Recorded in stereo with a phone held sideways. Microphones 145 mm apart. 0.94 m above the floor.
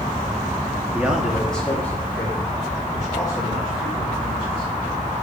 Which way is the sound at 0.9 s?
10° right (ahead or behind).